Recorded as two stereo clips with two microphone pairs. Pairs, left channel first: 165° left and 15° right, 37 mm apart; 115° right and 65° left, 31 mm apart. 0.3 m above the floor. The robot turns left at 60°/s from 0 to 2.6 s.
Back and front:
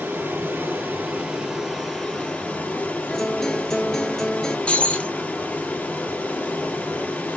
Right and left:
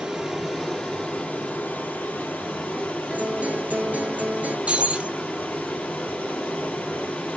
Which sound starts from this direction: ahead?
Running water, at 0.0 s.